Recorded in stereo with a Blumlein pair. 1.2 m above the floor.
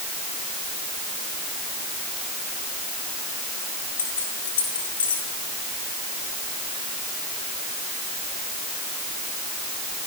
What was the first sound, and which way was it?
Keys jangling, 65° left.